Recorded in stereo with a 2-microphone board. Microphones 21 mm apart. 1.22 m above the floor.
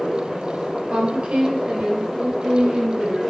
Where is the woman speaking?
65° right (ahead or behind), 3 m; by 3.2 s 80° right, 6.5 m.